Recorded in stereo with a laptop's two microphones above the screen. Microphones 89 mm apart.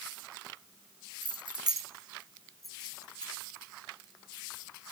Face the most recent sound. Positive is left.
turn(degrees=20)  # may be behind; listen again after turning